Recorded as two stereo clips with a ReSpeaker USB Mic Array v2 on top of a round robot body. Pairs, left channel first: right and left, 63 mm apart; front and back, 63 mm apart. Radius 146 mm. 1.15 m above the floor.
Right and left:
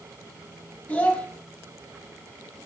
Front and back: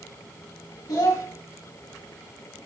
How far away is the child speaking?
About 1.7 m.